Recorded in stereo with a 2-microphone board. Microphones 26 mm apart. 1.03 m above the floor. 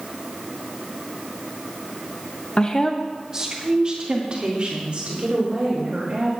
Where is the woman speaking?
40° left (ahead or behind), 0.8 m; by 6.3 s 50° right (ahead or behind), 5 m.